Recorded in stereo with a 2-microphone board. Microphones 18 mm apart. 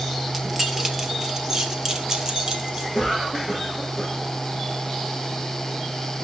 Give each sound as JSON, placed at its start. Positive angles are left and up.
{"t": 0.3, "sound": "keys jangling", "side_deg": -15, "distance_m": 1.9}
{"t": 2.9, "sound": "a cough", "side_deg": -5, "distance_m": 7.5}